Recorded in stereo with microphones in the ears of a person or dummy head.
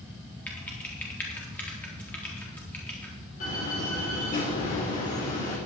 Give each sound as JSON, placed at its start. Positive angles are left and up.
{"t": 0.5, "sound": "typing on a keyboard", "side_deg": 10, "distance_m": 4.0}
{"t": 3.4, "sound": "a door slam", "side_deg": 40, "distance_m": 5.0}